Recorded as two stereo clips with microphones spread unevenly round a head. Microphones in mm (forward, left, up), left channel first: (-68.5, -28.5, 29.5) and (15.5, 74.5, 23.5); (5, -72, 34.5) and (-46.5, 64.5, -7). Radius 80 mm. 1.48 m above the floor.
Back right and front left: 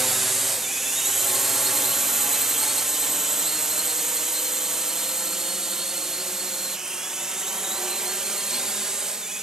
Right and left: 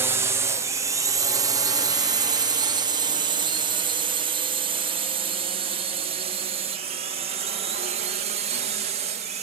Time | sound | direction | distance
0.0 | a drone | 135° left | ?